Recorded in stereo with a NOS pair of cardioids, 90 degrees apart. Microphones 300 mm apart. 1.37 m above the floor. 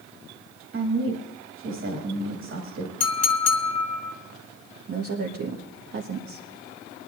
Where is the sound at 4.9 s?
50° right, 1.7 m.